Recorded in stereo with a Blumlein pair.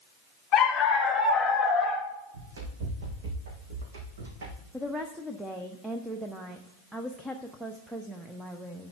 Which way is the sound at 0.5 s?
25° left.